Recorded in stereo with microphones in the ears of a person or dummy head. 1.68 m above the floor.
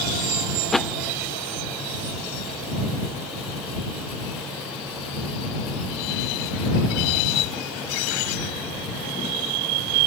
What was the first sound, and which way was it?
A thud, centre (ahead or behind).